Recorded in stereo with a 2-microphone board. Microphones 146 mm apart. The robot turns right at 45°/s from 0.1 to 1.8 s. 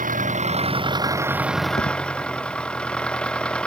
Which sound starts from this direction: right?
An engine running, at 0.0 s.